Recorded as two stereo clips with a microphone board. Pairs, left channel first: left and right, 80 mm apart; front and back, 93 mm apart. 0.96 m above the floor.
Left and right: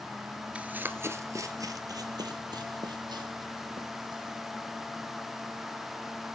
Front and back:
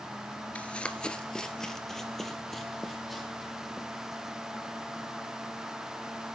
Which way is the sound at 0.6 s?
50° right.